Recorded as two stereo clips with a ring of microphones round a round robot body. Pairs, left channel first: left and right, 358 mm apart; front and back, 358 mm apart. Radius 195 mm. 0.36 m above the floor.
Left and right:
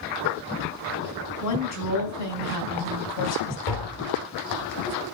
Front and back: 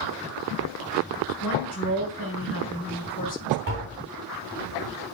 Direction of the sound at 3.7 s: 120° left.